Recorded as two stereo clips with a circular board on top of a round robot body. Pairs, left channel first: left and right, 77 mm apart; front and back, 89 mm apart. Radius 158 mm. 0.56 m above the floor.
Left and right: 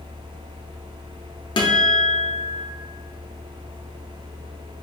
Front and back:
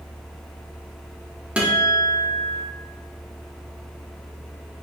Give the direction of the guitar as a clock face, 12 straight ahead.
9 o'clock.